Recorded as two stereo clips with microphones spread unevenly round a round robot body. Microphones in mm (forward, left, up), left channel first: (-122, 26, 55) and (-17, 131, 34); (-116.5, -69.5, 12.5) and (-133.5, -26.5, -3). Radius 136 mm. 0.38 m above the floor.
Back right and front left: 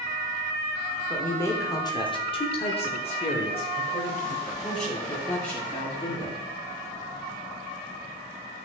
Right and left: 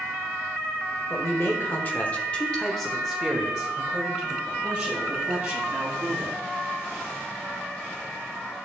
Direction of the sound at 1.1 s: 50° right.